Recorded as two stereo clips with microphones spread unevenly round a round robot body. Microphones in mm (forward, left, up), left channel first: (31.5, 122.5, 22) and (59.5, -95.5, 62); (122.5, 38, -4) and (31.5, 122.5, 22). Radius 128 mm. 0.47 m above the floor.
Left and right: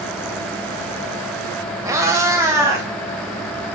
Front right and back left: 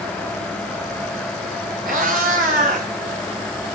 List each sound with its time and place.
1.9 s a cat meowing: 160° right, 0.6 m